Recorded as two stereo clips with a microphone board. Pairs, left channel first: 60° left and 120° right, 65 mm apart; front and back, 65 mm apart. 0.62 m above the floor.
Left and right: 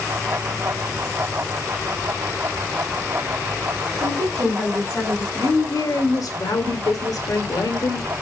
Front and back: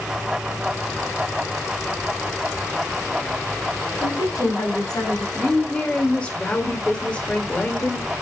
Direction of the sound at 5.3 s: 70° left.